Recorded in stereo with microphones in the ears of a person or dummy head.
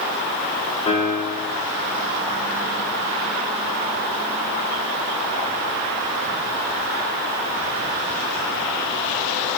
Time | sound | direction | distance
0.9 | a piano | 30° left (ahead or behind) | 2.5 m